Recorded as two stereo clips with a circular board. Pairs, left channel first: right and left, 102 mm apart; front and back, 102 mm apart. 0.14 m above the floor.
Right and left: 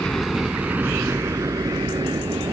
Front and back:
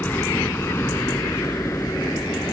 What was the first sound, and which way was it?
A helicopter, 25° right.